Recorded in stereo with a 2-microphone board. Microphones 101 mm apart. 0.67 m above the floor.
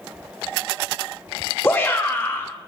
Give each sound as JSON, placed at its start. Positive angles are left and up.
{"t": 1.6, "sound": "a shout", "side_deg": 20, "distance_m": 0.8}